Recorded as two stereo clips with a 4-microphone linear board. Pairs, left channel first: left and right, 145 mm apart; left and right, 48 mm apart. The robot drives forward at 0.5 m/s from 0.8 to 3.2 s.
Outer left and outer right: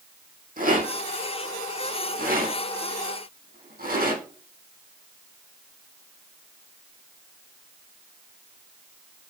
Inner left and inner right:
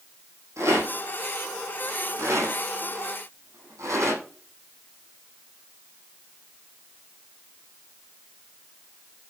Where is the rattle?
75° right (ahead or behind), 6 m; by 4.2 s 80° right, 6 m.